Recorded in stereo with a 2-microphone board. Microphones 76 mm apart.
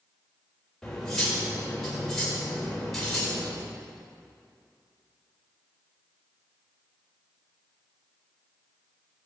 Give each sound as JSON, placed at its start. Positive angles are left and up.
{"t": 0.8, "sound": "cutlery clinking", "side_deg": 5, "distance_m": 4.0}